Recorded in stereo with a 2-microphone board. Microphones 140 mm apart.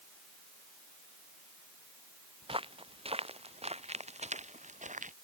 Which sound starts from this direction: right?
Footsteps, at 2.4 s.